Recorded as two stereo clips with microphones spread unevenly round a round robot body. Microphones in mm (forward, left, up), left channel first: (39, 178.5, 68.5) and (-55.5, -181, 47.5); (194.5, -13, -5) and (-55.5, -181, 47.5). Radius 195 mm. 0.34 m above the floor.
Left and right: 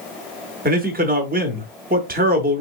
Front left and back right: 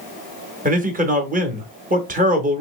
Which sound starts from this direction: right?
A man speaking, at 0.7 s.